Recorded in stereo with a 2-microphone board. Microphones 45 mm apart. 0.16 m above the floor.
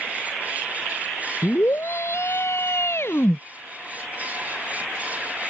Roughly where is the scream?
Left.